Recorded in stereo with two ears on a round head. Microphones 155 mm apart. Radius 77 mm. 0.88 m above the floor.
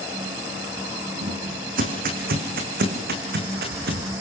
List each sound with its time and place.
1.2 s footsteps: 50° right (ahead or behind), 3.5 m; by 4.0 s 65° right (ahead or behind), 5 m